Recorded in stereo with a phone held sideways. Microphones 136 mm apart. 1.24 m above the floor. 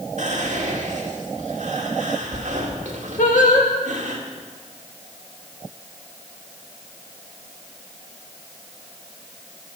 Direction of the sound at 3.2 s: 75° left (ahead or behind).